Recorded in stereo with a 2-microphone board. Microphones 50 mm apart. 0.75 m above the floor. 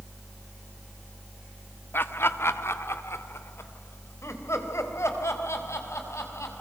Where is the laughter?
50° left (ahead or behind), 1.3 m; by 6.5 s 80° left, 6 m.